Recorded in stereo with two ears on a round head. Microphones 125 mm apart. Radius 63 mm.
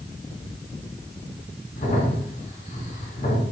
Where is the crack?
50° left (ahead or behind), 5 m.